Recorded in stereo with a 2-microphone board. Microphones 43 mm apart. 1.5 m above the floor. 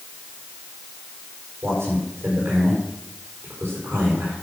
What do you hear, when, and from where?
1.6 s a man speaking: 80° right, 4.5 m